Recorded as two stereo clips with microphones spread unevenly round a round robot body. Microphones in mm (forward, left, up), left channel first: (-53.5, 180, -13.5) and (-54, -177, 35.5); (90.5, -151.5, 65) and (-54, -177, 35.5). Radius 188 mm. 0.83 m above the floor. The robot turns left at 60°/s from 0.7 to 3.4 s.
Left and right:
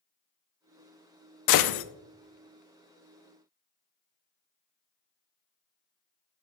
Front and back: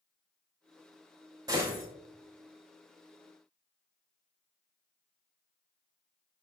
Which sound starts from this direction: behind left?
A gunshot, at 1.5 s.